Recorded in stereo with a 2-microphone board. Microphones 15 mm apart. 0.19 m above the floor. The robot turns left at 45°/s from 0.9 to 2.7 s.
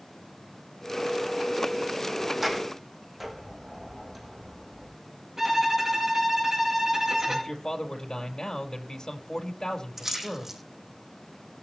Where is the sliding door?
30° right (ahead or behind), 5 m; by 5.0 s 15° right (ahead or behind), 5 m.